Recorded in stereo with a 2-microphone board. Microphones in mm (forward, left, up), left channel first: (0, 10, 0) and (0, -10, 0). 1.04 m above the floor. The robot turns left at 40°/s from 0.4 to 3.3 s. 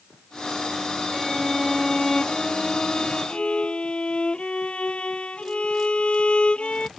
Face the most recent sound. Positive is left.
turn(degrees=105)